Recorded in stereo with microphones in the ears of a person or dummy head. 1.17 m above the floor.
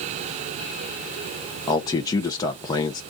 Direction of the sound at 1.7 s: 20° left (ahead or behind).